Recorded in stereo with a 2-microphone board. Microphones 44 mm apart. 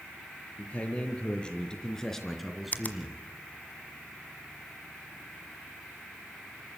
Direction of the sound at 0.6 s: 30° left (ahead or behind).